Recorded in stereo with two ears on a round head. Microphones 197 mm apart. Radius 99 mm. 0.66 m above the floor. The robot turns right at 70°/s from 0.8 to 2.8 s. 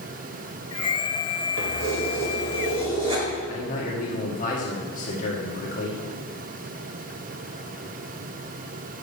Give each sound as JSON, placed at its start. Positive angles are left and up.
{"t": 1.6, "sound": "keys jangling", "azimuth_deg": -110, "distance_m": 1.7}
{"t": 3.5, "sound": "a man speaking", "side_deg": 35, "distance_m": 1.4}